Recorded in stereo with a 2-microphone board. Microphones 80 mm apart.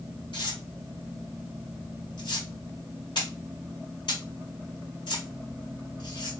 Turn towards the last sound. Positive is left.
turn(degrees=80)